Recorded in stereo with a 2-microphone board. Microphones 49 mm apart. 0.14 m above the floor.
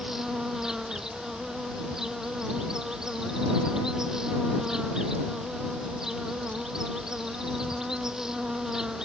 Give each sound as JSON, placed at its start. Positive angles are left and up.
{"t": 0.0, "sound": "an insect", "side_deg": -10}